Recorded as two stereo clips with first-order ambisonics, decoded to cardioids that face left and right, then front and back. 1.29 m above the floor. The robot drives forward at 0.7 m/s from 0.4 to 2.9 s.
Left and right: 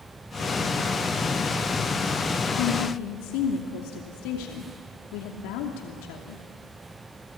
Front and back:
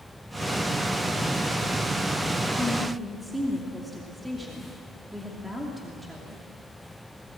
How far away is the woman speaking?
About 2.5 m.